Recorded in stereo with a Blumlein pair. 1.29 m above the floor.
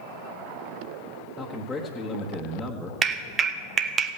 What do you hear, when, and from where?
1.4 s a man speaking: 10° left, 1.3 m
3.0 s a clap: 25° right, 1.0 m